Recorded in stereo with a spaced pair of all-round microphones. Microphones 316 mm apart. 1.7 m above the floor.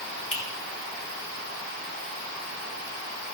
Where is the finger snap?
45° left (ahead or behind), 1.4 m.